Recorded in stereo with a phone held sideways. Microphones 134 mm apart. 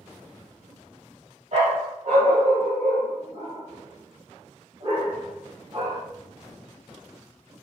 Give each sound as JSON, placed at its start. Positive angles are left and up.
{"t": 1.5, "sound": "a dog barking", "side_deg": -65, "distance_m": 2.5}